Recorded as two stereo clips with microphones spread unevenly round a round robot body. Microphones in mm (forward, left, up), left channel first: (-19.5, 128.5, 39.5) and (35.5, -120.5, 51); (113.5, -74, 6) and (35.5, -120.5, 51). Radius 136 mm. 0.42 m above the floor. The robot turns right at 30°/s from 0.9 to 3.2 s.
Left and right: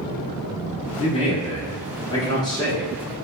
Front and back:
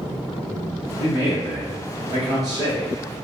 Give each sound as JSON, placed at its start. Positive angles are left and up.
{"t": 1.0, "sound": "a man speaking", "azimuth_deg": 100, "distance_m": 0.9}